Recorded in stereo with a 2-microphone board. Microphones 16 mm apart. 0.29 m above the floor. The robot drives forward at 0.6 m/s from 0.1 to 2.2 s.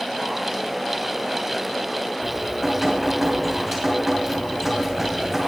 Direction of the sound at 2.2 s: 10° right (ahead or behind).